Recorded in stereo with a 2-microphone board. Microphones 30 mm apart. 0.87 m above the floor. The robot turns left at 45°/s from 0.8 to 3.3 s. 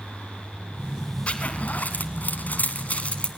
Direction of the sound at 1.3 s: 40° left (ahead or behind).